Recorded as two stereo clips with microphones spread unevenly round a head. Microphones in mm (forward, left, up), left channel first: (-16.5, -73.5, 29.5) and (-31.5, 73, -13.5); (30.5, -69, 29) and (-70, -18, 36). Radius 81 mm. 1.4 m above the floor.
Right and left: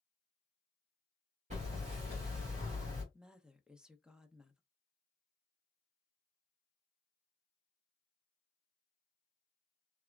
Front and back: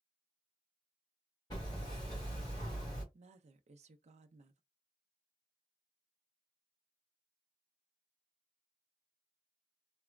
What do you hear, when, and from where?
1.5 s hammering: 40° left, 1.9 m
3.1 s a woman speaking: straight behind, 0.6 m